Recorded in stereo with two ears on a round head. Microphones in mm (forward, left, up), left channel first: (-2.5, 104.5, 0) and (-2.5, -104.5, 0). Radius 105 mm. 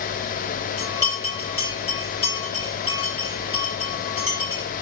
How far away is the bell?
About 4.5 m.